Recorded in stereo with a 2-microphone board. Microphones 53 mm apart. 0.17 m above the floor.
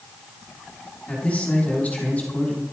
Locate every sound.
1.1 s a man speaking: 25° left (ahead or behind), 7 m